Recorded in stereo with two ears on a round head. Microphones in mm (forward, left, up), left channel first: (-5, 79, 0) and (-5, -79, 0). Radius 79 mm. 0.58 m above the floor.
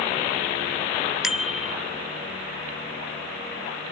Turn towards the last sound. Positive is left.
turn(degrees=0)  # may be behind; listen again after turning